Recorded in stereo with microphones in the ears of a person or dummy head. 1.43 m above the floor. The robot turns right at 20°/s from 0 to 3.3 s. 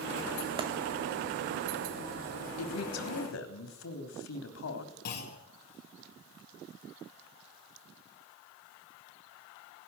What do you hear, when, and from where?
0.6 s a clap: 30° right (ahead or behind), 1.9 m
2.6 s a man speaking: 85° left, 3 m; by 4.9 s 75° left (ahead or behind), 3 m
5.0 s a clunk: 55° left (ahead or behind), 4 m